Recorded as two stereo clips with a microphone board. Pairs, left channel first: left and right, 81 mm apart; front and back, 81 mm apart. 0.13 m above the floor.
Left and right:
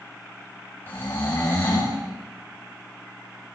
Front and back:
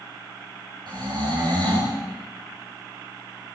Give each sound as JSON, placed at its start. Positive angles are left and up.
{"t": 0.9, "sound": "snoring", "azimuth_deg": 155, "distance_m": 7.0}